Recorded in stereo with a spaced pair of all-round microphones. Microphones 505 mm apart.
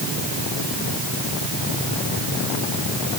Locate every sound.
Only background noise.